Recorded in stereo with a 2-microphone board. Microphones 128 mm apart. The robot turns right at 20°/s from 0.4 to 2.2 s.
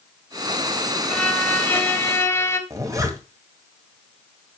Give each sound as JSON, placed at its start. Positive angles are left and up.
{"t": 1.1, "sound": "a violin", "side_deg": 10, "distance_m": 1.4}
{"t": 2.7, "sound": "a zipper", "side_deg": -25, "distance_m": 2.0}